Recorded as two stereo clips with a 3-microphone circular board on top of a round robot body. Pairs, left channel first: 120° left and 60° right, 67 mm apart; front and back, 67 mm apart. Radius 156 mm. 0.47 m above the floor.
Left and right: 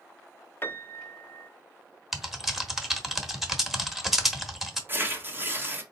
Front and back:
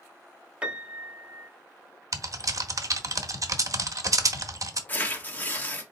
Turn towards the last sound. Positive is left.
turn(degrees=-40)